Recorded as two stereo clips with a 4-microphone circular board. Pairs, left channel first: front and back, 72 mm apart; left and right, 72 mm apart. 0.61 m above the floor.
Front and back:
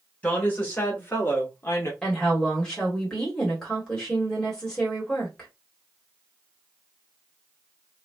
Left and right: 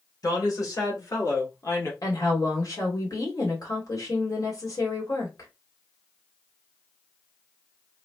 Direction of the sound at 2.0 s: 80° left.